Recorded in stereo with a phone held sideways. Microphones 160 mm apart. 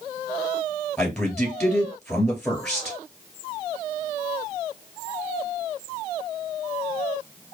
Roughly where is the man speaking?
Centre.